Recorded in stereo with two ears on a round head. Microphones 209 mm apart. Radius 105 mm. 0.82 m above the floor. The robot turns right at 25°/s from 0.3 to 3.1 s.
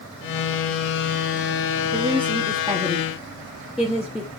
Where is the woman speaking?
30° right (ahead or behind), 1.4 m; by 4.3 s 5° right (ahead or behind), 1.4 m.